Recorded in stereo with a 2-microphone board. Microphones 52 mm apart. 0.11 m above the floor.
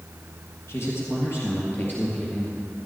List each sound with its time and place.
0.7 s a man speaking: 55° left (ahead or behind), 3 m; by 2.6 s 20° left (ahead or behind), 2.5 m